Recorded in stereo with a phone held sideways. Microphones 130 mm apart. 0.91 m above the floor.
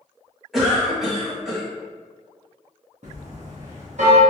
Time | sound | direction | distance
0.5 | a cough | centre (ahead or behind) | 1.3 m
3.0 | a bell | 60° right (ahead or behind) | 0.8 m